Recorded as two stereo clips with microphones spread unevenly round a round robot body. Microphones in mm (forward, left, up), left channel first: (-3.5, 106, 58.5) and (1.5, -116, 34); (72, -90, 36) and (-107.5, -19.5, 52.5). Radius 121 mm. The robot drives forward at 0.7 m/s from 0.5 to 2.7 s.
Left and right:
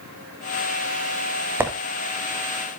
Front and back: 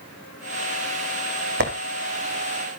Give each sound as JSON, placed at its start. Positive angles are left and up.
{"t": 1.6, "sound": "a squeak", "azimuth_deg": -170, "distance_m": 2.0}